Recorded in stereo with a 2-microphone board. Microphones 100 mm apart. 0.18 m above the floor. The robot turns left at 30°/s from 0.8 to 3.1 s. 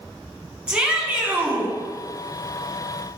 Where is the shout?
10° right (ahead or behind), 1.7 m; by 1.8 s 25° right (ahead or behind), 1.7 m.